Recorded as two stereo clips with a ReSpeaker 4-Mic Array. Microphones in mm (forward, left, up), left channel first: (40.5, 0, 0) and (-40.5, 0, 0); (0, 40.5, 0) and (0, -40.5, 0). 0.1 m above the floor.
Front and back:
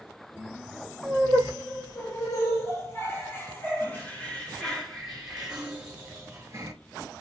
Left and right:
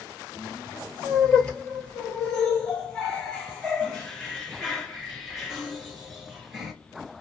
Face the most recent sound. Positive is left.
turn(degrees=180)